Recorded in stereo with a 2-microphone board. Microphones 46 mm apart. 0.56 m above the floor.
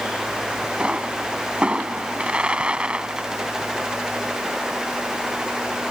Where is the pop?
25° right (ahead or behind).